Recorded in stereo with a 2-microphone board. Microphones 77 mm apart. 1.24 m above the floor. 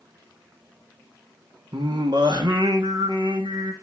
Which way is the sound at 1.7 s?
80° right.